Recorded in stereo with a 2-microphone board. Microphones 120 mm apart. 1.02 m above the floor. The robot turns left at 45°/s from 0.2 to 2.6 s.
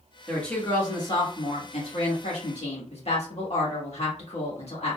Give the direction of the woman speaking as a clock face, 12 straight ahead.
6 o'clock.